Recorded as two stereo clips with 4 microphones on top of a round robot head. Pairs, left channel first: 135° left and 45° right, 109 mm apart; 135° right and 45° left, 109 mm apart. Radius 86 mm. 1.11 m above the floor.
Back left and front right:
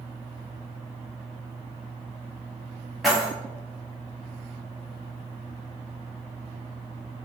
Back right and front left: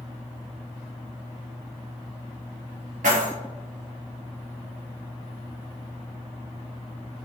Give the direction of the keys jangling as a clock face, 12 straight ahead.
11 o'clock.